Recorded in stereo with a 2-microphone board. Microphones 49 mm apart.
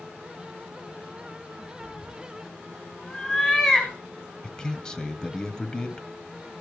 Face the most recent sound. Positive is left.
turn(degrees=15)  # may be behind; listen again after turning